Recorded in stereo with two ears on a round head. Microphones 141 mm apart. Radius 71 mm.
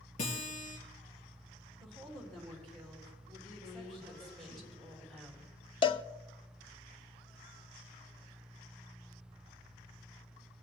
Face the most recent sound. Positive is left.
turn(degrees=30)  # may be behind; listen again after turning